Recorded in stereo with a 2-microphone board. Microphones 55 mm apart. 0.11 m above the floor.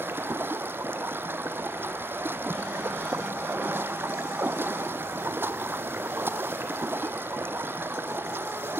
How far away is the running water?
About 1.0 m.